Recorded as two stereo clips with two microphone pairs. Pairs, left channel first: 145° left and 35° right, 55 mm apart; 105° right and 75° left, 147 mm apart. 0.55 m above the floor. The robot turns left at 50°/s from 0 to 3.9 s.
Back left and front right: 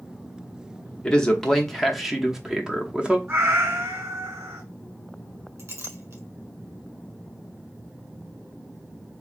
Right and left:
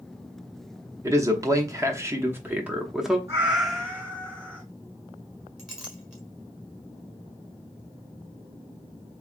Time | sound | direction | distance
1.0 | a man speaking | 95° left | 0.7 m
3.3 | a cat meowing | 5° left | 2.5 m
5.6 | a clink | 10° right | 1.5 m